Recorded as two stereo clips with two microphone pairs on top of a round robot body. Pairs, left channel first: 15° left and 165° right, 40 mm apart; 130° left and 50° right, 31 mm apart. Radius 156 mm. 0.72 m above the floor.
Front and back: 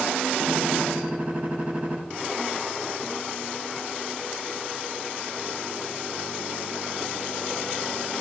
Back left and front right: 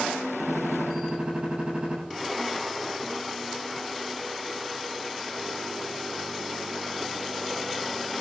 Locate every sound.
0.4 s a gunshot: 115° right, 9 m